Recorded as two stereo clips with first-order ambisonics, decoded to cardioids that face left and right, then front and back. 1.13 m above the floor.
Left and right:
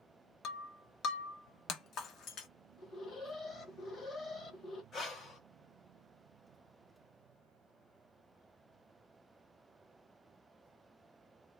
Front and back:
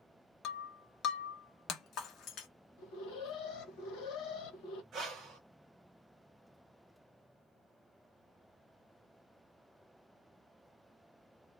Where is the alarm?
25° left, 0.9 m.